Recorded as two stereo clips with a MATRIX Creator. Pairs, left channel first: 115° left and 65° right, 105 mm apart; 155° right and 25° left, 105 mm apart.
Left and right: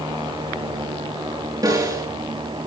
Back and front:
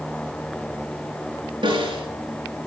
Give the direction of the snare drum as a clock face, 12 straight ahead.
12 o'clock.